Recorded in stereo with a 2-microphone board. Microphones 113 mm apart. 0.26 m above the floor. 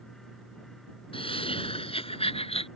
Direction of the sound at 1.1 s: 55° left (ahead or behind).